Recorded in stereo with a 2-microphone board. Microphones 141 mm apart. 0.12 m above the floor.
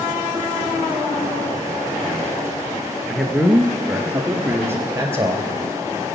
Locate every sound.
3.1 s a man speaking: 5° left (ahead or behind), 1.5 m; by 5.5 s 25° right (ahead or behind), 2.5 m